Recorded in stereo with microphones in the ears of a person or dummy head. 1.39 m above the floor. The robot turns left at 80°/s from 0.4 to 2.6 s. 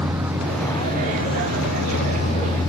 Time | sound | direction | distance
0.0 | a vehicle | 170° right | ?